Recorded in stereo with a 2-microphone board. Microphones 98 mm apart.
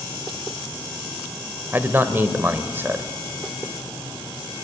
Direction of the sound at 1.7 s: 25° right (ahead or behind).